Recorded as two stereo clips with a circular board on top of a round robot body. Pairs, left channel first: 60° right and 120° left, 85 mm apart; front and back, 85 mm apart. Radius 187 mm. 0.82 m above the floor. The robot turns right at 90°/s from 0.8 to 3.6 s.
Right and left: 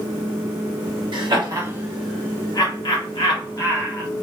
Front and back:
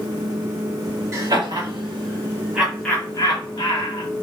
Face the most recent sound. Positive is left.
turn(degrees=-10)